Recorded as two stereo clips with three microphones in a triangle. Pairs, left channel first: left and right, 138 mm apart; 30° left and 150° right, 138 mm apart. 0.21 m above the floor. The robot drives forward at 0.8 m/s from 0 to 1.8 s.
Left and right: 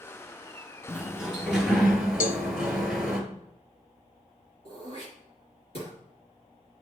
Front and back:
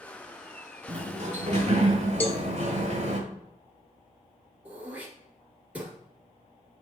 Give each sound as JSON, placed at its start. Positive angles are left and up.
{"t": 0.9, "sound": "a sliding door", "azimuth_deg": -175, "distance_m": 0.8}
{"t": 2.2, "sound": "a cowbell", "azimuth_deg": 105, "distance_m": 0.7}
{"t": 4.7, "sound": "throat clearing", "azimuth_deg": 130, "distance_m": 2.0}